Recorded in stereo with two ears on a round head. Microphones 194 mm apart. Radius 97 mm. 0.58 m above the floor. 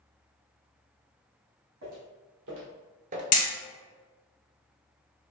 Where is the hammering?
35° left (ahead or behind), 1.3 m.